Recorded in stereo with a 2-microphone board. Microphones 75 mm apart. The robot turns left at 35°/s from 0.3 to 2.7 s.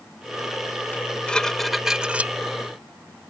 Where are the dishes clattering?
25° left; by 2.3 s 25° right.